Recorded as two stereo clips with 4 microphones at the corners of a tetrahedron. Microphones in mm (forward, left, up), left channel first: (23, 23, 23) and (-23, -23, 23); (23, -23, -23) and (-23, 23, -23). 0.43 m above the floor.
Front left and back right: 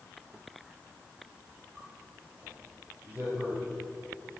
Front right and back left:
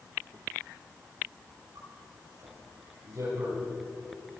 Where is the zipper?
160° left, 5.5 m.